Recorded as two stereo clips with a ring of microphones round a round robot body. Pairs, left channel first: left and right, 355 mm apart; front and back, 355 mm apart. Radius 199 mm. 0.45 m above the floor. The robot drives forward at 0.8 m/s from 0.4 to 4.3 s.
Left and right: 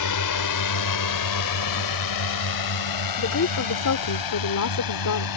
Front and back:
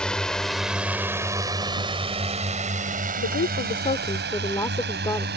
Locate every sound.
0.0 s a drone: 90° left; by 5.4 s 115° left
3.2 s a woman speaking: 50° left; by 5.3 s 80° left